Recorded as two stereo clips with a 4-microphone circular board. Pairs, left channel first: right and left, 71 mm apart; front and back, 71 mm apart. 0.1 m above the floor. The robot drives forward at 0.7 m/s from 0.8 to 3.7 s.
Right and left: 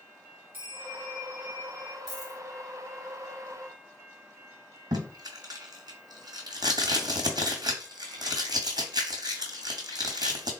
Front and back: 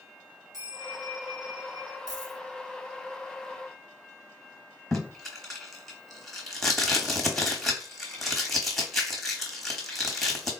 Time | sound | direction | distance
0.5 | a bell | 25° left | 2.0 m
2.1 | a dropped coin | 170° left | 1.9 m
4.9 | tape being pulled | 90° left | 0.9 m